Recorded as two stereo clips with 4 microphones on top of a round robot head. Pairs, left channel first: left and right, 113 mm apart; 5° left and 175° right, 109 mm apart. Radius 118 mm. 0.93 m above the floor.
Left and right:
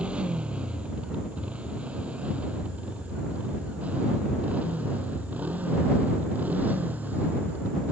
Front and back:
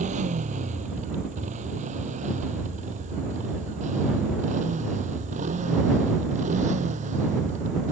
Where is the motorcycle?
175° right; by 7.9 s 170° right.